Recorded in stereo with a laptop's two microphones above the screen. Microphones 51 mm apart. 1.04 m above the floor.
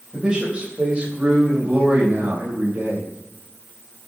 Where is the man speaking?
20° right (ahead or behind), 4.5 m; by 3.1 s 40° right (ahead or behind), 4 m.